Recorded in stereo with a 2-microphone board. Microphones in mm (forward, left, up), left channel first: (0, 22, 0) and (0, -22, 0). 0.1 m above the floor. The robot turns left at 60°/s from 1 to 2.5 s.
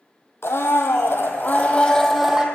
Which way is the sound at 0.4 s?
75° left.